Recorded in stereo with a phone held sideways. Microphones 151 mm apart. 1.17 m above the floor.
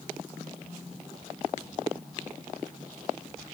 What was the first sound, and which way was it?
Only background noise.